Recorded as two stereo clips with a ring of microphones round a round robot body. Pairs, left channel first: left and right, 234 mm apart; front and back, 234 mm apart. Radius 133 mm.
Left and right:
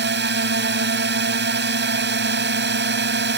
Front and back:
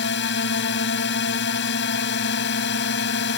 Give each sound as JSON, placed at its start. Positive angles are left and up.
{"t": 0.0, "sound": "a drone", "azimuth_deg": -50}